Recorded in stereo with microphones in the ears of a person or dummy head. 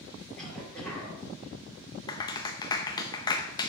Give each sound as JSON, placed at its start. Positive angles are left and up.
{"t": 0.3, "sound": "a cough", "side_deg": 0, "distance_m": 4.0}
{"t": 2.1, "sound": "a clap", "side_deg": 25, "distance_m": 0.6}